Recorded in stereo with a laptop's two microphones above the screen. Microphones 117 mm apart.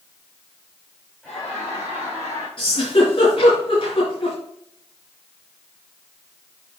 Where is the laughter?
5° left (ahead or behind), 4.5 m; by 2.5 s 25° left (ahead or behind), 5 m.